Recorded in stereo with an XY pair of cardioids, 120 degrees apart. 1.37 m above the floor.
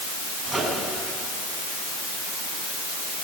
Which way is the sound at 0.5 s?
Straight ahead.